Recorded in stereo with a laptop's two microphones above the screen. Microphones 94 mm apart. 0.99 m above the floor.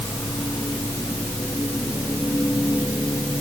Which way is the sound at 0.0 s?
35° left (ahead or behind).